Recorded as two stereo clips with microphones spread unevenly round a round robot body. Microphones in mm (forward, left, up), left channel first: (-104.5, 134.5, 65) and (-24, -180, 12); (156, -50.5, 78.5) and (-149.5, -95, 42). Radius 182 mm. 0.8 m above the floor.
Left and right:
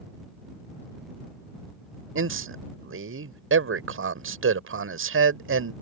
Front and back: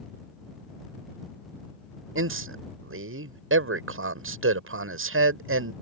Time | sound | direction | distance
2.1 | a man speaking | 125° right | ?